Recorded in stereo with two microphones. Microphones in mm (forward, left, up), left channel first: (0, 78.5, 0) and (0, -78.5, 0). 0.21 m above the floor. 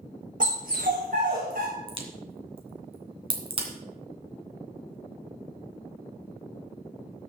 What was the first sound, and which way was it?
A dog barking, 60° right (ahead or behind).